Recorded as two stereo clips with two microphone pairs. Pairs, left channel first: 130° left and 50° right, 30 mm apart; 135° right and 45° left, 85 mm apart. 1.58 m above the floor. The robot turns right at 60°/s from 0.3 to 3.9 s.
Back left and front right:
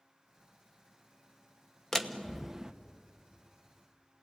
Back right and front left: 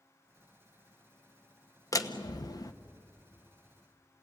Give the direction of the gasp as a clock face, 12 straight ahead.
No gasp in this recording.